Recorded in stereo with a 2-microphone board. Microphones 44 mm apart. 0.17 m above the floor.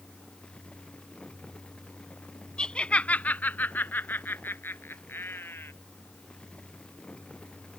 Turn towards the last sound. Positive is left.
turn(degrees=60)  # may be behind; listen again after turning